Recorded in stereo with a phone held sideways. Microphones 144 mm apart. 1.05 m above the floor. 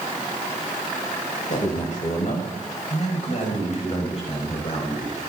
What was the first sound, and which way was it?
A man speaking, 60° left (ahead or behind).